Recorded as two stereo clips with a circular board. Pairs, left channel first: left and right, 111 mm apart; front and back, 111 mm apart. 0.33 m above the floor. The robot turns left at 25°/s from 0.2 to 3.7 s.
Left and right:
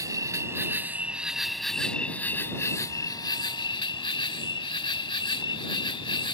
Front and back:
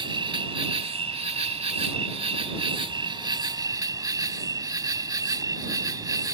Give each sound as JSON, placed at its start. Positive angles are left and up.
{"t": 0.0, "sound": "an insect", "azimuth_deg": -145}